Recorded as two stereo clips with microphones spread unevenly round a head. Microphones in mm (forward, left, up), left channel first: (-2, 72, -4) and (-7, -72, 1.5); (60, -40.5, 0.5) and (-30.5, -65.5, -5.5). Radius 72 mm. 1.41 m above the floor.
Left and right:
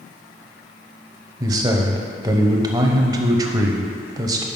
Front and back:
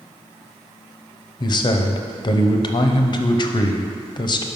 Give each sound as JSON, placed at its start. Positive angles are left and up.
{"t": 1.4, "sound": "a man speaking", "azimuth_deg": -25, "distance_m": 0.7}